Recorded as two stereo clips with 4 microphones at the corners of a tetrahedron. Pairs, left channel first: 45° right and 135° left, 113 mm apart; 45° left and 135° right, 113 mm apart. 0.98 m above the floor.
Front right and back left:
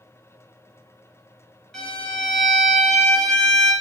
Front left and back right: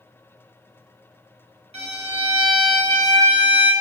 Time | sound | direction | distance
1.7 | a violin | 130° right | 1.0 m